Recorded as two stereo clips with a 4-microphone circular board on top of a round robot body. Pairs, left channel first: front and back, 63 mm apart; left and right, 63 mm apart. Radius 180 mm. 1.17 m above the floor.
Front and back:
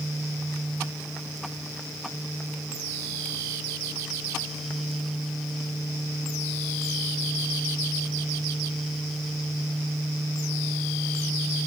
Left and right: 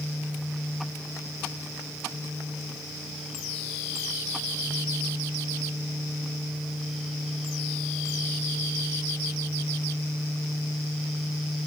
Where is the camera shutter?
I don't hear a camera shutter.